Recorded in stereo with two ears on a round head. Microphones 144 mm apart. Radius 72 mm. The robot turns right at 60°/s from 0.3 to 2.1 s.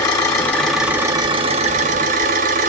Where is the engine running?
155° left, 1.0 m; by 2.7 s 100° right, 1.0 m.